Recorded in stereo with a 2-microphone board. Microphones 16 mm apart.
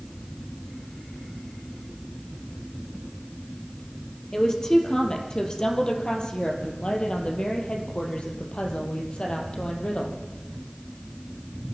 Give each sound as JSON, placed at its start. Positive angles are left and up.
{"t": 4.3, "sound": "a woman speaking", "side_deg": 40, "distance_m": 4.0}